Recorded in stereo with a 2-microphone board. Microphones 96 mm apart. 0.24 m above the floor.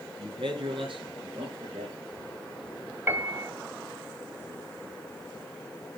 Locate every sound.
0.2 s a man speaking: 60° right (ahead or behind), 2.5 m; by 2.0 s 70° right (ahead or behind), 5 m
3.1 s a piano: 25° right (ahead or behind), 1.2 m